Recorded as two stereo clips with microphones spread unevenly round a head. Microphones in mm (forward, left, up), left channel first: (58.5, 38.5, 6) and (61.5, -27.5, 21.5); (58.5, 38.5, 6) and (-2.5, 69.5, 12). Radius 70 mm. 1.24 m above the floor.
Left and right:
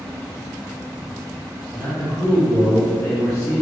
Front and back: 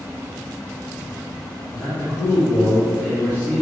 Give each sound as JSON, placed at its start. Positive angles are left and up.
{"t": 1.7, "sound": "a man speaking", "azimuth_deg": 40, "distance_m": 2.5}